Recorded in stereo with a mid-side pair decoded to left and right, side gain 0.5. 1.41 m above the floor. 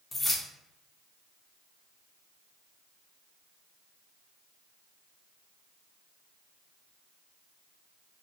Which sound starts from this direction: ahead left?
Keys jangling, at 0.1 s.